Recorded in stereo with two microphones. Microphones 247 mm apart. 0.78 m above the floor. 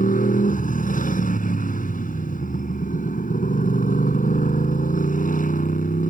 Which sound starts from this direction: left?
A motorcycle, at 0.0 s.